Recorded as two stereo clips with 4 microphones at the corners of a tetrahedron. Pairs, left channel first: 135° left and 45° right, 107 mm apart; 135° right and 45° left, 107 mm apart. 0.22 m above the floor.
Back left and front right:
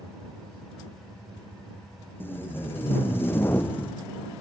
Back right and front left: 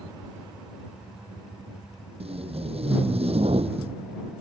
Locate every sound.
2.2 s tape being pulled: 65° left